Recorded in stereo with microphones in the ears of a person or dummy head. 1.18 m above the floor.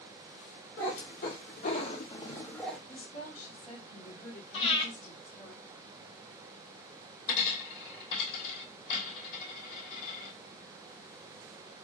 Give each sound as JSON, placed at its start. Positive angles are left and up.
{"t": 0.8, "sound": "a cat meowing", "side_deg": 55, "distance_m": 1.9}
{"t": 2.9, "sound": "a woman speaking", "side_deg": 45, "distance_m": 2.5}
{"t": 4.5, "sound": "breathing", "side_deg": 30, "distance_m": 1.1}
{"t": 7.3, "sound": "a dropped coin", "side_deg": 40, "distance_m": 2.5}